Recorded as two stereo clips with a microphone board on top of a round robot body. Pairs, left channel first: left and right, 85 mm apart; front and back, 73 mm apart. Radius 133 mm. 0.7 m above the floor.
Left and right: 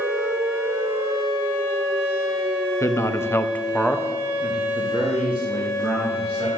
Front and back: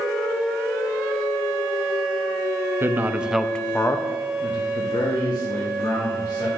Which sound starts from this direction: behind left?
A man speaking, at 2.8 s.